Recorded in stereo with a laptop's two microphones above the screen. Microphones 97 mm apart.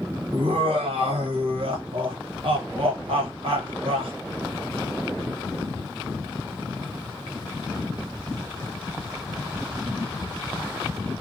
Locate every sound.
0.3 s laughter: 70° right (ahead or behind), 1.3 m